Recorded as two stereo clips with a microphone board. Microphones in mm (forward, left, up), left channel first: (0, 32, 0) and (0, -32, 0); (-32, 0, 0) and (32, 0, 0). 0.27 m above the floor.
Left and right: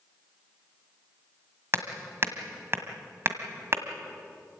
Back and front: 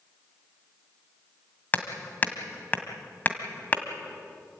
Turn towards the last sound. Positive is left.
turn(degrees=-125)